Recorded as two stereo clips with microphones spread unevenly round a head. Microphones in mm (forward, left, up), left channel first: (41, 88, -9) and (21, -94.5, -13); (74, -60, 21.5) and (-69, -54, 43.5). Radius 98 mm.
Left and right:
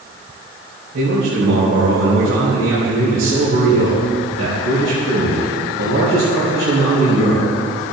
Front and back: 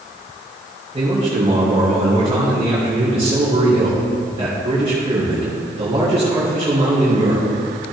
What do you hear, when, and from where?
0.9 s a man speaking: 130° right, 3.5 m